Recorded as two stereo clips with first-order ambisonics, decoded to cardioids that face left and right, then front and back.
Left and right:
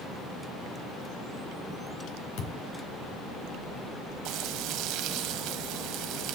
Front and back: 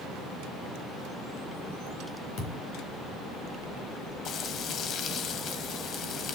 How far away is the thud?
About 3.5 m.